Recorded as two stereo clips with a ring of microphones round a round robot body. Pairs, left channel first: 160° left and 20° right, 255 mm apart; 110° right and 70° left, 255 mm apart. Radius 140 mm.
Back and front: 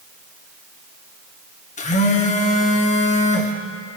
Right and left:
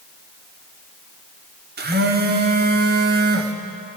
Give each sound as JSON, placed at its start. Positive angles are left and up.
{"t": 1.8, "sound": "a phone buzzing", "azimuth_deg": 105, "distance_m": 1.1}